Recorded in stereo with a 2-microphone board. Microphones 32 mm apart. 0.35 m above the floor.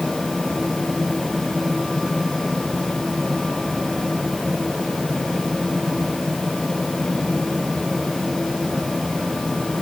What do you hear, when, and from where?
Only background noise.